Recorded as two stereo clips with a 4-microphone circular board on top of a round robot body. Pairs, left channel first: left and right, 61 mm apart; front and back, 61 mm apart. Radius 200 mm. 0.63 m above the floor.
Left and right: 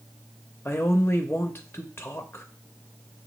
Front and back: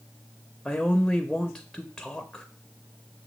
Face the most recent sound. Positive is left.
turn(degrees=80)